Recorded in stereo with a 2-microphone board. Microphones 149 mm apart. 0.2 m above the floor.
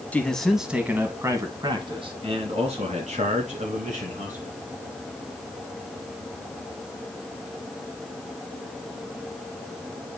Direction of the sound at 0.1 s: 10° left (ahead or behind).